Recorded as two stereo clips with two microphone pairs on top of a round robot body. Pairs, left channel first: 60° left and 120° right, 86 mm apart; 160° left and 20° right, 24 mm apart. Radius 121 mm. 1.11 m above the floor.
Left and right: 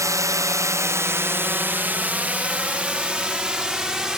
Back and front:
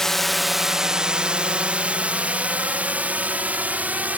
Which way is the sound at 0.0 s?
150° right.